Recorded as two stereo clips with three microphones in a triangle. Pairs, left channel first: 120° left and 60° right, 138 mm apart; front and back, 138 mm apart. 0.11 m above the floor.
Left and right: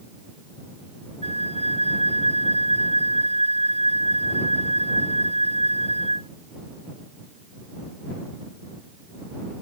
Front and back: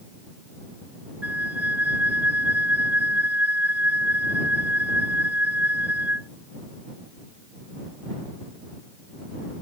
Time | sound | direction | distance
1.2 | a flute | 100° right | ?